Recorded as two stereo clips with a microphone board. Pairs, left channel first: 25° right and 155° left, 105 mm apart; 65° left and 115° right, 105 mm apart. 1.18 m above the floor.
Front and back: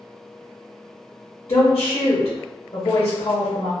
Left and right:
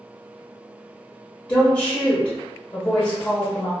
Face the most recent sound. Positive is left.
turn(degrees=15)